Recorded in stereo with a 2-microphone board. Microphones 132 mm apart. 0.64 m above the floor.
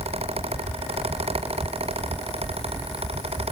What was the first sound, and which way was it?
Only background noise.